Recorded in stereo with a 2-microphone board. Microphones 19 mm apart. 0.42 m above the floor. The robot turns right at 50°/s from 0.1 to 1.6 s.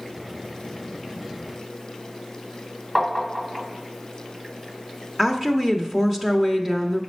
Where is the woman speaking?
20° right (ahead or behind), 0.8 m.